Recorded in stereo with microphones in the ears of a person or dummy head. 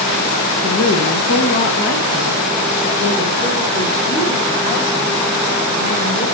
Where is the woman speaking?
70° left (ahead or behind), 1.0 m; by 6.2 s 40° left (ahead or behind), 4.5 m.